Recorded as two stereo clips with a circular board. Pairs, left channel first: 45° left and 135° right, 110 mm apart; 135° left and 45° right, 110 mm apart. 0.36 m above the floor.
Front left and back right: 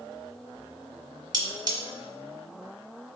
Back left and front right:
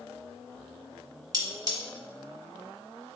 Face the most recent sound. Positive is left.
turn(degrees=-95)